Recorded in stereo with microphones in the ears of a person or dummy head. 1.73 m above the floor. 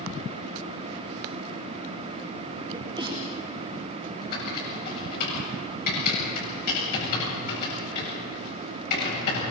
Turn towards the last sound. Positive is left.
turn(degrees=50)  # may be behind; listen again after turning